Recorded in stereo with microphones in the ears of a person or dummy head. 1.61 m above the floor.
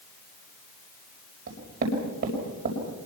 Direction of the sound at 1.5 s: 50° right (ahead or behind).